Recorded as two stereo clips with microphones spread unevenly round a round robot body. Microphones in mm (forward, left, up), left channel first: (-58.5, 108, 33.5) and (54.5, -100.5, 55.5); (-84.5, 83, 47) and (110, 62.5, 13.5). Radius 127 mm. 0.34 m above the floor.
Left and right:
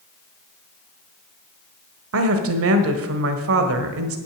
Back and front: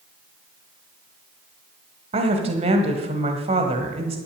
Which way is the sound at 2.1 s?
55° right.